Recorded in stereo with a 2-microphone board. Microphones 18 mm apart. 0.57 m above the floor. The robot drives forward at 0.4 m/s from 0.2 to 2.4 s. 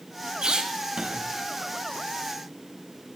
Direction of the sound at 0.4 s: 55° right (ahead or behind).